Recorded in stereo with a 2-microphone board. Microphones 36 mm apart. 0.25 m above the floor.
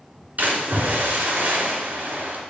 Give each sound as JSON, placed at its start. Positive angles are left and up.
{"t": 0.4, "sound": "a splash", "side_deg": -50, "distance_m": 3.5}